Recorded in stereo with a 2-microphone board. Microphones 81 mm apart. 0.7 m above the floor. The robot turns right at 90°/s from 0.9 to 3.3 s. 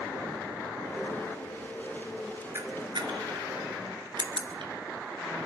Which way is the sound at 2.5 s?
30° right (ahead or behind).